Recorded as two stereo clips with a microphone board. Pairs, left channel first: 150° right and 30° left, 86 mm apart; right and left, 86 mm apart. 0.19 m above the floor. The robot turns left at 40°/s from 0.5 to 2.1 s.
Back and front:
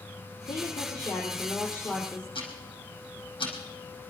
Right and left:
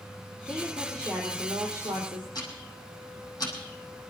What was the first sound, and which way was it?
A woman speaking, 170° right.